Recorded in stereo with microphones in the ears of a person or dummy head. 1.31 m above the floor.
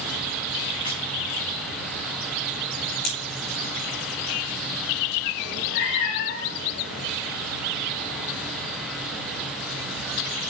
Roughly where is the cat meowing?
Left.